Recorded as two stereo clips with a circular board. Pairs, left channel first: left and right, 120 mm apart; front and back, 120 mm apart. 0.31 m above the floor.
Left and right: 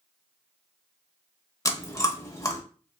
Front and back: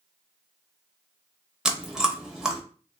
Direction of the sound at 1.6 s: 100° left.